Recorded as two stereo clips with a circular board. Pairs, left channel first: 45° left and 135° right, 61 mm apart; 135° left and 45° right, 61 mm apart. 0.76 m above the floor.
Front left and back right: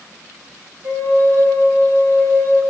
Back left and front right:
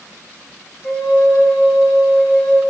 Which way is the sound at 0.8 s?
150° right.